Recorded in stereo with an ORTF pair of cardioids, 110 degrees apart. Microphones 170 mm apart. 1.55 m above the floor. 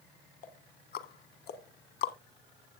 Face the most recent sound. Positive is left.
turn(degrees=65)